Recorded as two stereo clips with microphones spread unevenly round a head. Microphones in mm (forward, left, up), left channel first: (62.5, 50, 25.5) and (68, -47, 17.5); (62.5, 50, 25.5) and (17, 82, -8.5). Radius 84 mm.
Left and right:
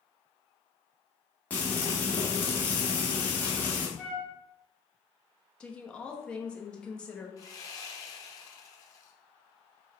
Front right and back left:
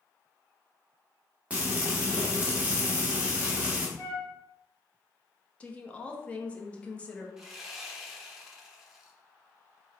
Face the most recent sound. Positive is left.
turn(degrees=45)